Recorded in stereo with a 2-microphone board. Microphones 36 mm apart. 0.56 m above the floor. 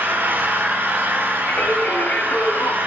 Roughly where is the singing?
Left.